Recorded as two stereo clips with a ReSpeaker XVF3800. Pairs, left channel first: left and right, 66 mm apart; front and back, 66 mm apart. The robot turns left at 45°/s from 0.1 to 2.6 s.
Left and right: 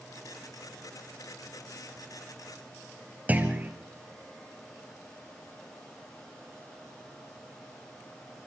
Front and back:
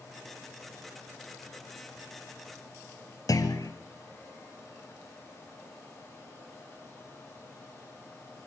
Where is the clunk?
25° right, 2.5 m.